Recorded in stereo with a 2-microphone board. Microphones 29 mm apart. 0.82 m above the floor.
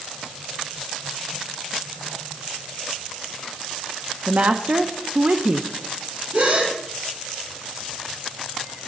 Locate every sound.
4.3 s a woman speaking: 60° right (ahead or behind), 0.9 m
6.3 s a gasp: 80° right, 6.5 m